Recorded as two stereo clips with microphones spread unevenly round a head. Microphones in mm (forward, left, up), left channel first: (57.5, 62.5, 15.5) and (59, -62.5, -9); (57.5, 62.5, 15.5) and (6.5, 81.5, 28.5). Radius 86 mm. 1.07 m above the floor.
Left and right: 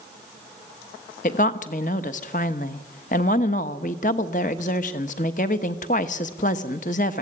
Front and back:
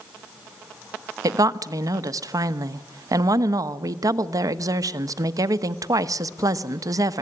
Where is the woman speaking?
140° left, 1.0 m.